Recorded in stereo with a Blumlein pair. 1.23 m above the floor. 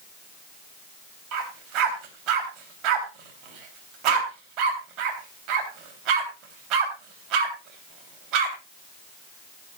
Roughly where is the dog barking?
Ahead right.